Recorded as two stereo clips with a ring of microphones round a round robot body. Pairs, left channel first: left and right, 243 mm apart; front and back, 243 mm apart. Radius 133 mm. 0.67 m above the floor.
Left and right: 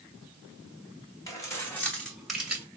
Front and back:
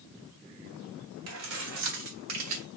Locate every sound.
1.3 s keys jangling: 165° left, 2 m; by 2.6 s 175° right, 2 m